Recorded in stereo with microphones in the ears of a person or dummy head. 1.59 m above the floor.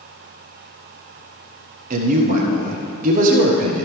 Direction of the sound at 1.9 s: 40° right (ahead or behind).